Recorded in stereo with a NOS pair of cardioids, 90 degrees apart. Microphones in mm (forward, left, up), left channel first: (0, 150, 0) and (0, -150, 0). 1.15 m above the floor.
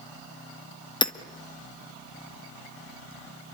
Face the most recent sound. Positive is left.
turn(degrees=15)